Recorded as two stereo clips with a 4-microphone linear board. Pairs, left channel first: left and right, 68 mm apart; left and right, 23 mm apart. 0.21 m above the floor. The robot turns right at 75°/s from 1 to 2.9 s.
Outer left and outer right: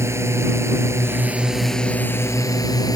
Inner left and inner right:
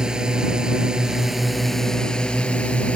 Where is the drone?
45° right; by 3.0 s 95° left.